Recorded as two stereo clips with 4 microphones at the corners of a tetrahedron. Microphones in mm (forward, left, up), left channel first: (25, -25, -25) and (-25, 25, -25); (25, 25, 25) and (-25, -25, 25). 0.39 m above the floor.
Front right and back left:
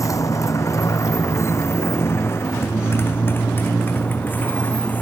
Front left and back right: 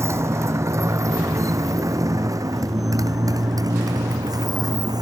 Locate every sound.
0.0 s a motorcycle: 85° right; by 5.0 s 110° right